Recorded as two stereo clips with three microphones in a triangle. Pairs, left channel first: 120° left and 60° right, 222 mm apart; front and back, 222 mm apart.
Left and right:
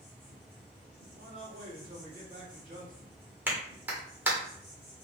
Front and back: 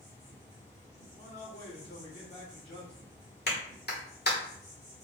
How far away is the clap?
About 1.1 m.